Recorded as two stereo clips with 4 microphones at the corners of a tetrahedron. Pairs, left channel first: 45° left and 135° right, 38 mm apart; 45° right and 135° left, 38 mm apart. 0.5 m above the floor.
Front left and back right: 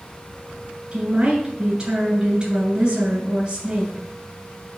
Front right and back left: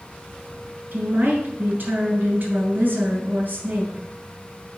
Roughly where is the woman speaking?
Behind.